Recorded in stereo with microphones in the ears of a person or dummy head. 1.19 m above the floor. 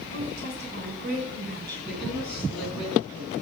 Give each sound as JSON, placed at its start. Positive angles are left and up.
{"t": 0.1, "sound": "a woman speaking", "side_deg": -55, "distance_m": 5.5}
{"t": 1.9, "sound": "a woman speaking", "side_deg": 0, "distance_m": 10.0}